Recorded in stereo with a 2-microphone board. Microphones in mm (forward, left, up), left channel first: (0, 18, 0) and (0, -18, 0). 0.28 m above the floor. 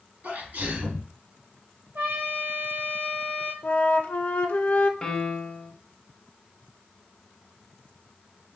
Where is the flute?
55° left (ahead or behind), 0.5 m.